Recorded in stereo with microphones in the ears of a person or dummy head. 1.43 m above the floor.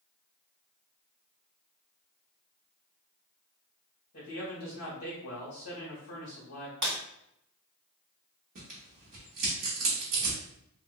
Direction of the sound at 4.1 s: 55° left (ahead or behind).